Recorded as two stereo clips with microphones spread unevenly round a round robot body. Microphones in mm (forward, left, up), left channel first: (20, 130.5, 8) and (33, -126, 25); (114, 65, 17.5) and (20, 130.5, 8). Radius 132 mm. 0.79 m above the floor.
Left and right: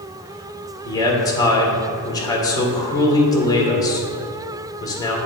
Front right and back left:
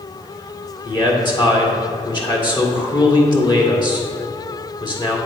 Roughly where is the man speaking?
Ahead.